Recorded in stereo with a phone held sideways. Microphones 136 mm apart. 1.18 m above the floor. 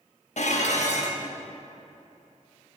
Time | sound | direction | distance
0.4 | dishes clattering | 65° left (ahead or behind) | 1.0 m